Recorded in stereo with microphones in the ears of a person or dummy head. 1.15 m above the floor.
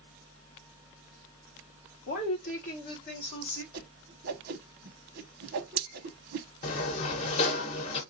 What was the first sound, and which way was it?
A woman speaking, 40° left (ahead or behind).